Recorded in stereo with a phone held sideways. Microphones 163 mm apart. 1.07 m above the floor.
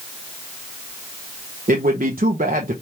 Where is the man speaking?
65° right (ahead or behind), 0.6 m.